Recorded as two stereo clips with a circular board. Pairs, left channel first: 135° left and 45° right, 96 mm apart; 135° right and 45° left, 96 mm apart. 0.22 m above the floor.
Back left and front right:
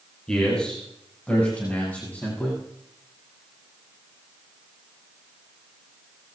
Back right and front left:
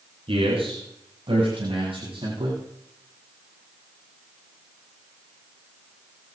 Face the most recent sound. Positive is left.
turn(degrees=60)